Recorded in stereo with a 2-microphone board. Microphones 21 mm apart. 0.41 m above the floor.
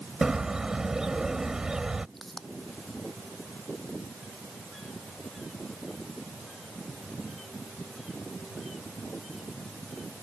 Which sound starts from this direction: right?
A bird, at 0.2 s.